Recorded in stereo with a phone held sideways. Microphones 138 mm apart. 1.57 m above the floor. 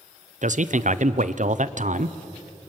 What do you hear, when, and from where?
0.4 s a man speaking: 65° right (ahead or behind), 0.8 m